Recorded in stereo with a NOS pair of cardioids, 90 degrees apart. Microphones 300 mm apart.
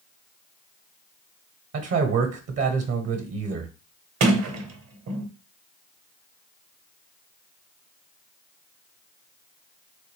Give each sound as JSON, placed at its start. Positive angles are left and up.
{"t": 1.7, "sound": "a man speaking", "azimuth_deg": -55, "distance_m": 0.9}
{"t": 4.2, "sound": "a sliding door", "azimuth_deg": -50, "distance_m": 0.9}